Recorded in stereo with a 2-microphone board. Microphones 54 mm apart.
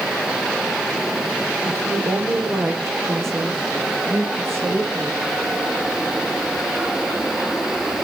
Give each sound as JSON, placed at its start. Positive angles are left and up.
{"t": 1.6, "sound": "a woman speaking", "side_deg": -60, "distance_m": 8.0}